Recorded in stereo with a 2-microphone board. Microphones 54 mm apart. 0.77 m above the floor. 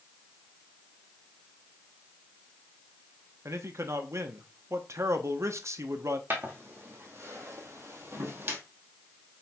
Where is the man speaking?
60° right (ahead or behind), 0.8 m.